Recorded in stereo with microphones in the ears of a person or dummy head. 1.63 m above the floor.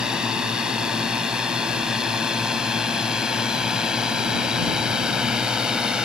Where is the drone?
10° right (ahead or behind).